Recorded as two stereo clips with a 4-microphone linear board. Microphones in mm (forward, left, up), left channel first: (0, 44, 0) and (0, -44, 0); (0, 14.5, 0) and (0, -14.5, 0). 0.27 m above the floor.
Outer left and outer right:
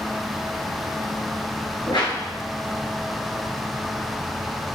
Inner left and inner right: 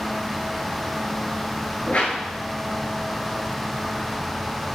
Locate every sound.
1.9 s a whoosh: 70° left (ahead or behind), 0.8 m